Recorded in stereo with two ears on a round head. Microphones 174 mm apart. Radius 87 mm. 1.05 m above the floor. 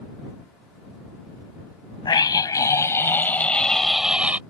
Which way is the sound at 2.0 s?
25° left (ahead or behind).